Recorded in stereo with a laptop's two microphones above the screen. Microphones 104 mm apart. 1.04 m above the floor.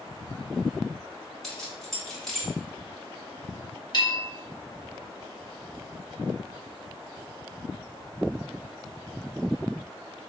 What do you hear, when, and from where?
1.4 s keys jangling: 5° left (ahead or behind), 1.2 m
3.9 s a bell: 45° left (ahead or behind), 1.0 m